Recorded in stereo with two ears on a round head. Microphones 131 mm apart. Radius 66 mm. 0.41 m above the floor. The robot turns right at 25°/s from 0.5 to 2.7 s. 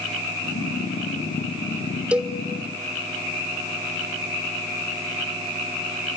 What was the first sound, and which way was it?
A cowbell, 5° right (ahead or behind).